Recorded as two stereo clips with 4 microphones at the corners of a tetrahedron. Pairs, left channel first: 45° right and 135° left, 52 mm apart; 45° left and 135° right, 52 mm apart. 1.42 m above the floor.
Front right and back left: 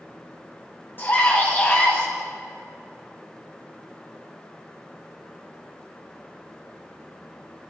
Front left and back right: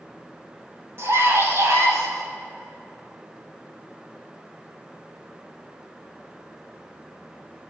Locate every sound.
1.0 s a scream: 95° right, 9 m; by 2.1 s 100° right, 9 m